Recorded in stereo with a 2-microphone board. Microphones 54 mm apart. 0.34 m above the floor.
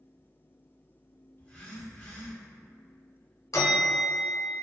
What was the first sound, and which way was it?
A phone buzzing, 25° left (ahead or behind).